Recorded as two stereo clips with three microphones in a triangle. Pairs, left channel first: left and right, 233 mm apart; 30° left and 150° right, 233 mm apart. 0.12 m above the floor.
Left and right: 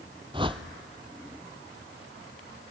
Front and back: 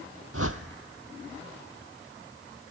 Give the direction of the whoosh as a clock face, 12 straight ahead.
5 o'clock.